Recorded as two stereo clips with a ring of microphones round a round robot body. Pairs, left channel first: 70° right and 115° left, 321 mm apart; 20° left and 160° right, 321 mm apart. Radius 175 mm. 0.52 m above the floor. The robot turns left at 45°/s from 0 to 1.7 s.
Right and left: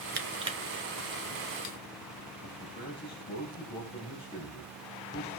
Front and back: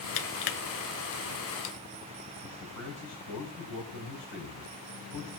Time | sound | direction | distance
0.2 | crushing | 50° left | 1.3 m
2.4 | a man speaking | 5° left | 4 m